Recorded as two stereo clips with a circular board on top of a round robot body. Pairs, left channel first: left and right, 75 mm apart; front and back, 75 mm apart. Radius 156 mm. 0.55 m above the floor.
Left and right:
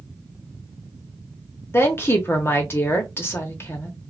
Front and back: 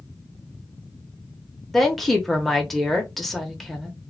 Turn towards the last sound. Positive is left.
turn(degrees=90)